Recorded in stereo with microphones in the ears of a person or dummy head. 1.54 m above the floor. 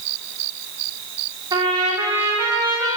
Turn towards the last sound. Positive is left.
turn(degrees=-20)  # may be behind; listen again after turning